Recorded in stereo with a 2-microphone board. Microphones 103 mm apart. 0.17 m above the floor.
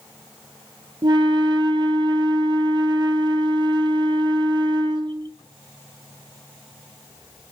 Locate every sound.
1.0 s a flute: 50° right (ahead or behind), 0.7 m